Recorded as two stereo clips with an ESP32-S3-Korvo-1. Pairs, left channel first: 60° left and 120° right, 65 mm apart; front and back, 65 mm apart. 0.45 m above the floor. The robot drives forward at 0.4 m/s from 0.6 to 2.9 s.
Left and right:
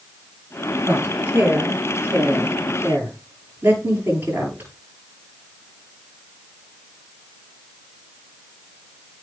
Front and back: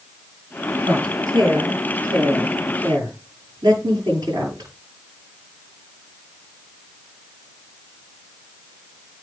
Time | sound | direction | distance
0.8 | a woman speaking | straight behind | 8 m